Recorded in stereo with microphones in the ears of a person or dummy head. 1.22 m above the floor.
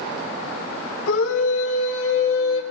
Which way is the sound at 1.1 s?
90° left.